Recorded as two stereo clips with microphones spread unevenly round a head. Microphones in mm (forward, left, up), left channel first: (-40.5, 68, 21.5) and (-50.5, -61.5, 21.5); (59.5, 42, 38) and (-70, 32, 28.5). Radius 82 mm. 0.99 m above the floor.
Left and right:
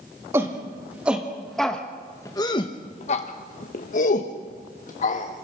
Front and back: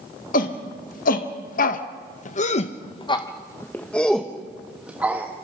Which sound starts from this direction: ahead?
A shout, at 0.3 s.